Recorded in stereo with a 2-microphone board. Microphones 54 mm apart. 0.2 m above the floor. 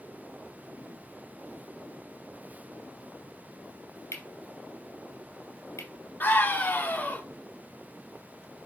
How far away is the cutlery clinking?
About 3 m.